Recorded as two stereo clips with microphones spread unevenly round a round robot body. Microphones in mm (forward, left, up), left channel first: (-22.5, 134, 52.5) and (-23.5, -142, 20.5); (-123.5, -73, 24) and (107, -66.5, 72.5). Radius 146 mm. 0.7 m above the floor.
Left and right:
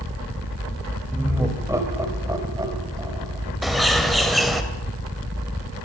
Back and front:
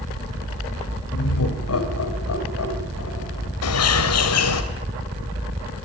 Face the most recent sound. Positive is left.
turn(degrees=180)